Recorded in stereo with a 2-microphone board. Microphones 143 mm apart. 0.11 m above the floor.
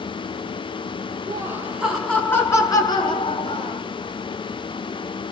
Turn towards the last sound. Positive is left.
turn(degrees=45)  # may be behind; listen again after turning